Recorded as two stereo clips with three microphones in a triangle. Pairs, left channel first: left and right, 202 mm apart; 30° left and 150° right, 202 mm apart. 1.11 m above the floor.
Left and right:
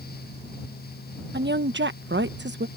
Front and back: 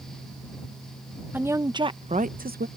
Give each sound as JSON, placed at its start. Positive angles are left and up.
{"t": 1.3, "sound": "a woman speaking", "azimuth_deg": -70}